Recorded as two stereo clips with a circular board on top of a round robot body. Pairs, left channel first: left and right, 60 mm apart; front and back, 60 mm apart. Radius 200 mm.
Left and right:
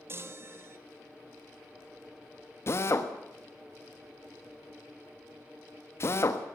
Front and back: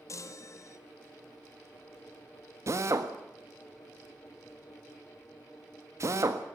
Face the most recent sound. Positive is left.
turn(degrees=140)